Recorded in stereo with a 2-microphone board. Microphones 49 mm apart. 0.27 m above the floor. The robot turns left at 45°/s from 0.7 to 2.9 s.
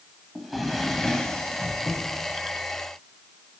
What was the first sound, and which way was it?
A drawer, straight behind.